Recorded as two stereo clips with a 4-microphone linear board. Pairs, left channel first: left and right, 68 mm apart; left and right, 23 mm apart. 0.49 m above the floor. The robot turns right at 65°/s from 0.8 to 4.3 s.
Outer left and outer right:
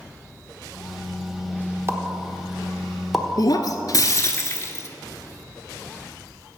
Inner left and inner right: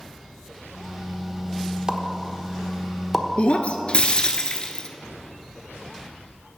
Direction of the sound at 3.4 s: 70° left.